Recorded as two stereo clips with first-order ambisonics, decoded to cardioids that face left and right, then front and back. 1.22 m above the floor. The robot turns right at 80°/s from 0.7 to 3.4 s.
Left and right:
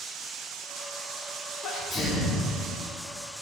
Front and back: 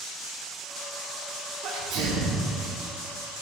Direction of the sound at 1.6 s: 135° left.